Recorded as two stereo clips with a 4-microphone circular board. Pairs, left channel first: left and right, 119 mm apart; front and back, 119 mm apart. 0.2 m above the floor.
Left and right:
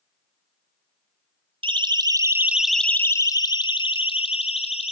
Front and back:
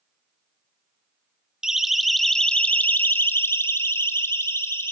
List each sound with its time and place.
1.6 s a siren: 95° right, 2 m; by 4.9 s 70° left, 3.5 m